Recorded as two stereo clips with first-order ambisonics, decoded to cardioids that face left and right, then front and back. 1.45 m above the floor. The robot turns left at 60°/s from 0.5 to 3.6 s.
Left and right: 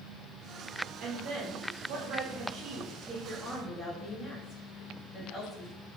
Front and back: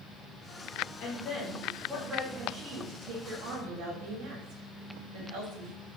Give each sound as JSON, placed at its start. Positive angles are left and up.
{"t": 1.0, "sound": "a woman speaking", "azimuth_deg": -35, "distance_m": 2.5}